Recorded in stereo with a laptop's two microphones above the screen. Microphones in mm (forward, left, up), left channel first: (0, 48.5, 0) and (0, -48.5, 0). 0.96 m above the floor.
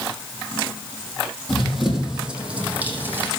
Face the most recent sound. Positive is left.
turn(degrees=-20)  # may be behind; listen again after turning